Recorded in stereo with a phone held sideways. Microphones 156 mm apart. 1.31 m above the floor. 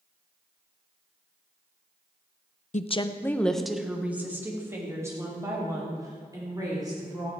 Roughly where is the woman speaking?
Left.